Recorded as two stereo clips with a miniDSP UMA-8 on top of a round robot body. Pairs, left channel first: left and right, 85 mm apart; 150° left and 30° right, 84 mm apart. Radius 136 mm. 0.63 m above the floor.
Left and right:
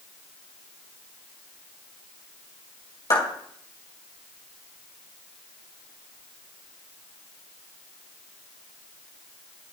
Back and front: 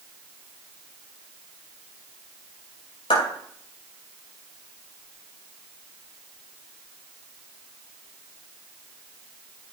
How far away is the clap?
About 5.5 m.